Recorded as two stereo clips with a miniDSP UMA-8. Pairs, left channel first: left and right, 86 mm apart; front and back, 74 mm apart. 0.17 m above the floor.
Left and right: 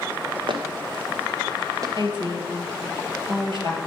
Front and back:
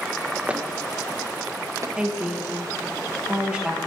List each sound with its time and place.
0.5 s footsteps: 105° right, 1.7 m; by 1.9 s 135° right, 1.7 m
2.0 s a woman speaking: 100° right, 3.5 m